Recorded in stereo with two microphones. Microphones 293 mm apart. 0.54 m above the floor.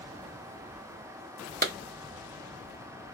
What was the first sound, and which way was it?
A clap, 30° right (ahead or behind).